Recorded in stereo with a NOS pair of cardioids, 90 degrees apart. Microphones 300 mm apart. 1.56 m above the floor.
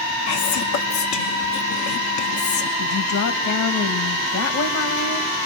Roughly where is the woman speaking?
Left.